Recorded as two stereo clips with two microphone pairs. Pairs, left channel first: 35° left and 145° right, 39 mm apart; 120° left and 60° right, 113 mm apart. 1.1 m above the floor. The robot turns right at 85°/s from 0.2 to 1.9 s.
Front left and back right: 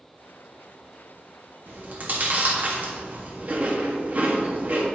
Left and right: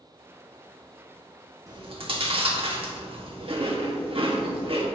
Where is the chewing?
115° right, 1.6 m; by 4.9 s 95° right, 1.6 m.